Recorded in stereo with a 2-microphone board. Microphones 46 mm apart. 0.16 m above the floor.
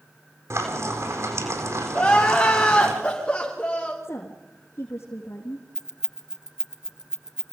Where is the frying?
80° right, 4 m.